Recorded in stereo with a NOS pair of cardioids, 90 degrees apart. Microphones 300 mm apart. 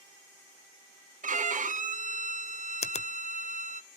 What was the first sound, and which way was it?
A violin, 25° right.